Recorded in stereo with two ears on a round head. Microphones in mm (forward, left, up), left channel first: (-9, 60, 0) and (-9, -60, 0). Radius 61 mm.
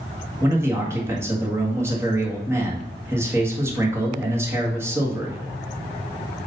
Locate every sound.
0.4 s a man speaking: 20° right (ahead or behind), 1.8 m